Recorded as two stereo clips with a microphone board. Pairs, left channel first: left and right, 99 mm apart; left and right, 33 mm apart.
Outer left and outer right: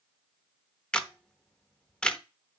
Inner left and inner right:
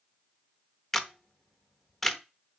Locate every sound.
0.9 s a camera shutter: 10° left (ahead or behind), 0.8 m